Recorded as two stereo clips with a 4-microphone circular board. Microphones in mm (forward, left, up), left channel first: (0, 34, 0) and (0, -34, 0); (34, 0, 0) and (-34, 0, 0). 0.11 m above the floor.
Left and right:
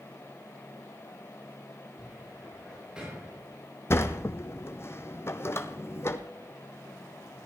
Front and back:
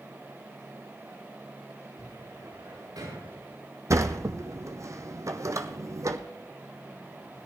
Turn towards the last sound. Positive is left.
turn(degrees=140)